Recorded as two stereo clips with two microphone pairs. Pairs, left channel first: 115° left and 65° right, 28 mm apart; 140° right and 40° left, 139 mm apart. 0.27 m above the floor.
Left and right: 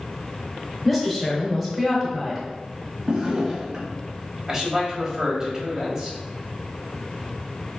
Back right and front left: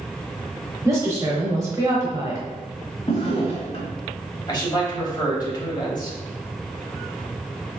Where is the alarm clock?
No alarm clock in this recording.